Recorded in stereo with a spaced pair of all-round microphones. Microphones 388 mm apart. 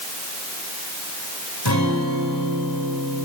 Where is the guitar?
85° left, 5.5 m.